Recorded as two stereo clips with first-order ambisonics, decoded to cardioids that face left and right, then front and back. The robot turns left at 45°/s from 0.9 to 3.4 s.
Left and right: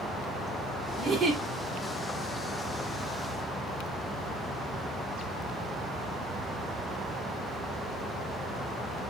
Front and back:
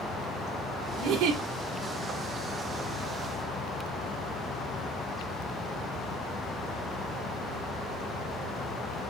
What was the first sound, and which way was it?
A giggle, 145° right.